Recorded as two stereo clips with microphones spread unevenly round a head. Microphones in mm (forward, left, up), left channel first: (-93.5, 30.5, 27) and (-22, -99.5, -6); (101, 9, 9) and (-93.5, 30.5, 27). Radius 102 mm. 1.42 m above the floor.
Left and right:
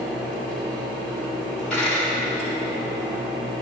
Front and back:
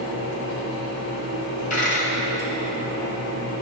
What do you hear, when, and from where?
0.0 s a fan: 15° left, 3 m
1.7 s a dropped coin: 40° left, 2.0 m